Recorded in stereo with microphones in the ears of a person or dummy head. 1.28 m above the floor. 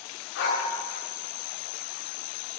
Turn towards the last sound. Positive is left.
turn(degrees=50)  # may be behind; listen again after turning